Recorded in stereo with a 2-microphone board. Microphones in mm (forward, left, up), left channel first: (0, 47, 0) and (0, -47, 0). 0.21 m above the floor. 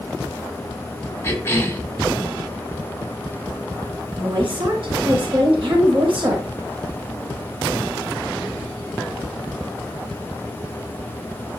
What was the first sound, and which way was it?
A cough, 25° left (ahead or behind).